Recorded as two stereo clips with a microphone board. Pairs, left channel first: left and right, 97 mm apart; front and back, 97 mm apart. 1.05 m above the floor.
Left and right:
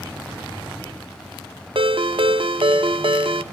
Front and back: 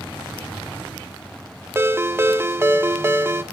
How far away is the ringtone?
About 0.6 m.